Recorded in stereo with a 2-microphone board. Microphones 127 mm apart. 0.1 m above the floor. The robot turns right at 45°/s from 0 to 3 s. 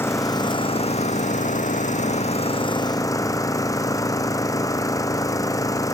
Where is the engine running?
20° left; by 5.9 s 155° left.